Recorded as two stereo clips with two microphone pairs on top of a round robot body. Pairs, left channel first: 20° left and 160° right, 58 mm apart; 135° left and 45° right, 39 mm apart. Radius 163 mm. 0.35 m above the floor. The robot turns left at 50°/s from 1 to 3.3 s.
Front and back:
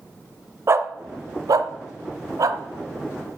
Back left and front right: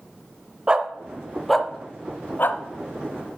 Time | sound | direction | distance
0.7 | a dog barking | 115° right | 0.7 m